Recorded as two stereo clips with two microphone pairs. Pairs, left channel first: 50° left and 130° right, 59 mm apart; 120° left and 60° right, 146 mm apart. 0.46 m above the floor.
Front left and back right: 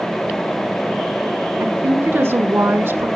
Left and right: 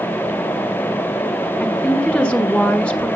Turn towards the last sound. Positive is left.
turn(degrees=-150)